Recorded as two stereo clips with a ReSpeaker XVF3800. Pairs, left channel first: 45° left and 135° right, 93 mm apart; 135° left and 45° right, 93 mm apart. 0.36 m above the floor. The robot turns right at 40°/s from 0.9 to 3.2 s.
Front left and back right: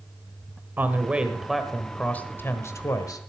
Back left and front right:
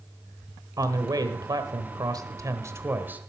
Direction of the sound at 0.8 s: 70° right.